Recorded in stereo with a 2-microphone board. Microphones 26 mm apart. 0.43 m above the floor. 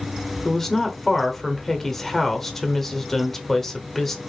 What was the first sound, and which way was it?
A woman speaking, 10° left (ahead or behind).